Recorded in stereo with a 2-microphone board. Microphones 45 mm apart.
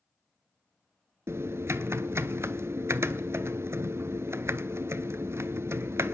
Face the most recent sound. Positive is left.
turn(degrees=-75)  # may be behind; listen again after turning